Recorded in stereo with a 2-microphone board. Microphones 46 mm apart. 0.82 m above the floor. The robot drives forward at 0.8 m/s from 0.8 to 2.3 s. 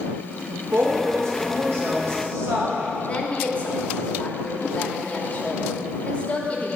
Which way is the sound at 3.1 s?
30° left (ahead or behind).